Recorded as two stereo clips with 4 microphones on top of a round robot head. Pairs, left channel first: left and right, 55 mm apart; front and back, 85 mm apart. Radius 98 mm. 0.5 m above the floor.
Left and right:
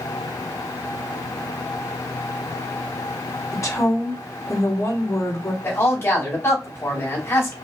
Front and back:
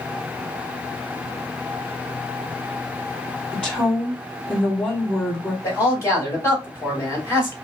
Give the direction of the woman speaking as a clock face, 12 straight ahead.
9 o'clock.